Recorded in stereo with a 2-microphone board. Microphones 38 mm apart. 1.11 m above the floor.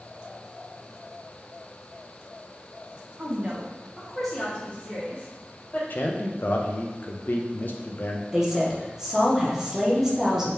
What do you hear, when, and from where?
3.2 s a woman speaking: 35° right (ahead or behind), 0.8 m; by 5.8 s 40° left (ahead or behind), 1.5 m
5.9 s a man speaking: 55° left (ahead or behind), 0.6 m
8.3 s a woman speaking: 10° right (ahead or behind), 0.8 m